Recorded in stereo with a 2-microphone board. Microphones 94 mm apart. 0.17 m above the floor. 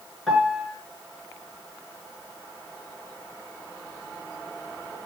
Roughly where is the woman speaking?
No woman speaking in this recording.